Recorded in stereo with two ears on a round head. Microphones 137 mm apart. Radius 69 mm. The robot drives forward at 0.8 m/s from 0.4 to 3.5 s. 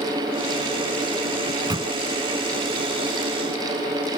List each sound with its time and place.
1.5 s a microwave: 25° right (ahead or behind); by 1.9 s 30° right (ahead or behind)